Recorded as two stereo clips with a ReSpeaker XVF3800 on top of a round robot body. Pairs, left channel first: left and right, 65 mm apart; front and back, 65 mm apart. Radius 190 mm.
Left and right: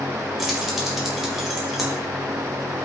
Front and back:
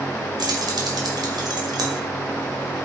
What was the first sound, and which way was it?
Keys jangling, 175° right.